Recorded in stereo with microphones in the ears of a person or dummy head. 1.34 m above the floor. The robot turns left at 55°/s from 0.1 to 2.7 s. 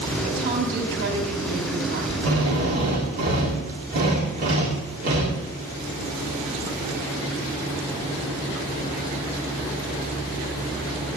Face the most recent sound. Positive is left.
turn(degrees=-45)  # may be behind; listen again after turning